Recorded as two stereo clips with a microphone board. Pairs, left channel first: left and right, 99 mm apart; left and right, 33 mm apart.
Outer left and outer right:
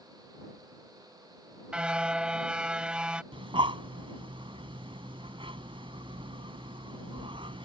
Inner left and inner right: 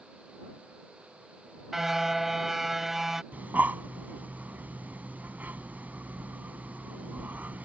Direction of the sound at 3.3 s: 65° right (ahead or behind).